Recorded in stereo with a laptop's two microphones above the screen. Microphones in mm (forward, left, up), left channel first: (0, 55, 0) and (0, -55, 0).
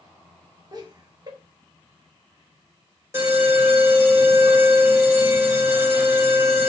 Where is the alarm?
25° right (ahead or behind), 1.9 m.